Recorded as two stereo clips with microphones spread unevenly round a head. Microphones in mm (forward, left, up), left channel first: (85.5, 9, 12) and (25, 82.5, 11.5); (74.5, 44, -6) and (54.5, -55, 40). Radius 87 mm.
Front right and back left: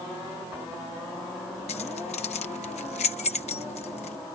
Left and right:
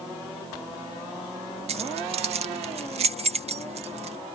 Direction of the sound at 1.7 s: 95° right.